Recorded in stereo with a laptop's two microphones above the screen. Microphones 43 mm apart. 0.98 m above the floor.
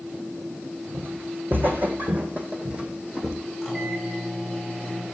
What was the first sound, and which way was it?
Footsteps, 55° right (ahead or behind).